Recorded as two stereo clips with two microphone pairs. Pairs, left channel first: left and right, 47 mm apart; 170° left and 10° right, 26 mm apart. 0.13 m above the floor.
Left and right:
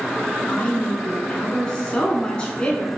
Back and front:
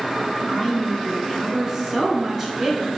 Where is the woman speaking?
40° left, 1.2 m.